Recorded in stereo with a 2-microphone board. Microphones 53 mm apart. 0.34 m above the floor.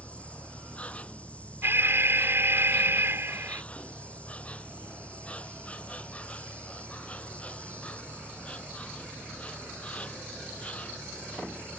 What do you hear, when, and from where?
0.0 s an insect: 25° left (ahead or behind)
1.6 s an alarm: 45° right (ahead or behind)